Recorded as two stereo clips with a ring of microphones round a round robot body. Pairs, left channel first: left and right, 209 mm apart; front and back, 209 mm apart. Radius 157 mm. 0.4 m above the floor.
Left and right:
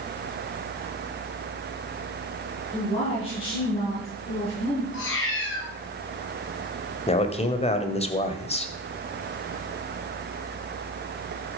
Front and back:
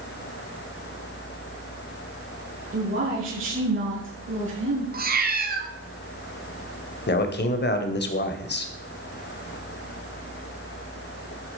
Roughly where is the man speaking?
Ahead left.